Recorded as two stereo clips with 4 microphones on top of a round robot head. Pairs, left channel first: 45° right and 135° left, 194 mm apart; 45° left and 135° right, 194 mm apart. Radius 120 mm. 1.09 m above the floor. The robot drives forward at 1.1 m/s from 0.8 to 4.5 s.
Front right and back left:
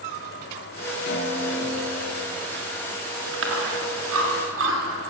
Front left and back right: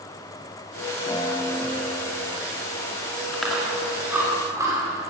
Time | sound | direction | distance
1.1 | a guitar | 25° right | 3 m
3.3 | chewing | 130° left | 2.5 m